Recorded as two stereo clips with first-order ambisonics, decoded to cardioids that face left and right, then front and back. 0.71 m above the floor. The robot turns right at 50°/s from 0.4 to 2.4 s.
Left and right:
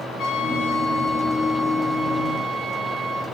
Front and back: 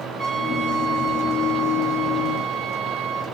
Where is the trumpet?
120° left, 4 m; by 3.2 s 140° right, 4 m.